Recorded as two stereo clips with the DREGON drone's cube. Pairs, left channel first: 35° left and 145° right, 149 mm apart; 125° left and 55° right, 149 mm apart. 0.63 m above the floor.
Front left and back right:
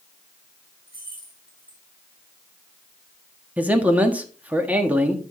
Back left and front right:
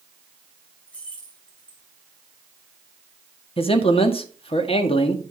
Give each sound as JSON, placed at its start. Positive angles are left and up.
{"t": 0.9, "sound": "keys jangling", "azimuth_deg": -155, "distance_m": 4.0}
{"t": 3.6, "sound": "a man speaking", "azimuth_deg": 140, "distance_m": 1.4}